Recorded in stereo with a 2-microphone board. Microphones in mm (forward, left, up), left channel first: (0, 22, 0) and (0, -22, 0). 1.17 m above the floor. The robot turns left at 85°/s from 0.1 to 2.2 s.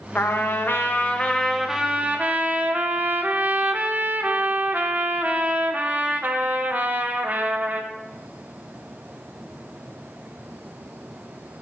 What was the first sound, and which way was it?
A trumpet, 120° left.